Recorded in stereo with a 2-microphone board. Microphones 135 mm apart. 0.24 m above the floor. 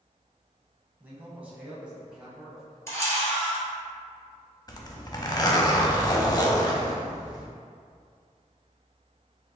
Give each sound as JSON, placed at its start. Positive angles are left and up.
{"t": 1.0, "sound": "a man speaking", "side_deg": -15, "distance_m": 1.3}
{"t": 2.9, "sound": "a camera shutter", "side_deg": 20, "distance_m": 1.5}
{"t": 4.7, "sound": "a zipper", "side_deg": 30, "distance_m": 0.5}